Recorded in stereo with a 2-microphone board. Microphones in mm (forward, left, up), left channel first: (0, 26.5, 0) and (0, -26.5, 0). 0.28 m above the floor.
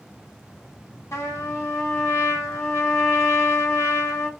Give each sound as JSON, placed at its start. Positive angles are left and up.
{"t": 1.1, "sound": "a trumpet", "side_deg": 60, "distance_m": 1.0}